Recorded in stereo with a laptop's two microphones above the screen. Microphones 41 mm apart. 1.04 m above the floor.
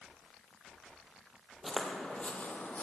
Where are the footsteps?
Centre (ahead or behind), 1.2 m; by 2.8 s 45° left (ahead or behind), 1.6 m.